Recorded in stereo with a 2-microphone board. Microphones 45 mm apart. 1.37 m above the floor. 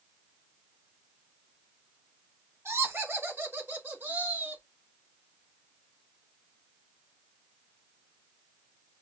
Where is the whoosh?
No whoosh in this recording.